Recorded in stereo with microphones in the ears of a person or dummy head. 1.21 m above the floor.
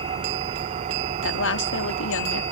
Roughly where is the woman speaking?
Left.